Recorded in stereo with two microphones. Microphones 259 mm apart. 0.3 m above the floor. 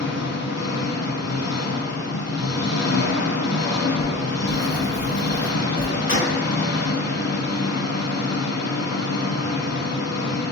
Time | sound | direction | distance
0.0 | an engine running | 75° left (ahead or behind) | 0.7 m
4.0 | writing | 45° left (ahead or behind) | 1.4 m
6.1 | a gunshot | 50° left (ahead or behind) | 0.8 m